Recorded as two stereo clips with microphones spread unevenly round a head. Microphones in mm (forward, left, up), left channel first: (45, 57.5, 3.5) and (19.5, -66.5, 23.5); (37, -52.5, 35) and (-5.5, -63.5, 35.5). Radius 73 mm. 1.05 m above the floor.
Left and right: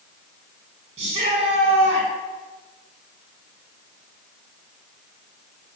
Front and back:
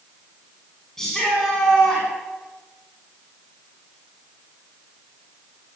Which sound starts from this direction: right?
A shout, at 1.0 s.